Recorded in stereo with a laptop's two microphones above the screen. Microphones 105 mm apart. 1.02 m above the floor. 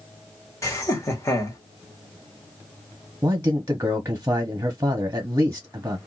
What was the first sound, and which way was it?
Laughter, 30° left (ahead or behind).